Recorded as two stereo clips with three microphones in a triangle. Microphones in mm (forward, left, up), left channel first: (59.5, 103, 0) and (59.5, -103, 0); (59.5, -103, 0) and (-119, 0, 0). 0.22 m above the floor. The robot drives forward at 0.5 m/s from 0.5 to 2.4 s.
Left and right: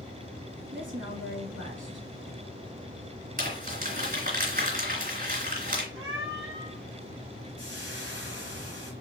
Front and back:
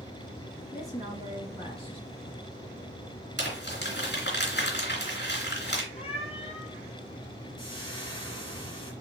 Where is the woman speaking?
80° right, 3 m; by 2.1 s 95° right, 3 m.